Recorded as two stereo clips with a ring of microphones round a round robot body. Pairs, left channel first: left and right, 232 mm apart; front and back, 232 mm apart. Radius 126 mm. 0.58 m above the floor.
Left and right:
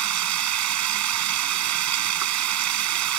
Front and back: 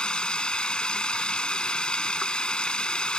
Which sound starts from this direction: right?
Running water, at 0.0 s.